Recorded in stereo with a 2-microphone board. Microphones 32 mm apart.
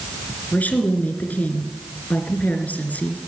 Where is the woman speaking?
60° left (ahead or behind), 2.5 m.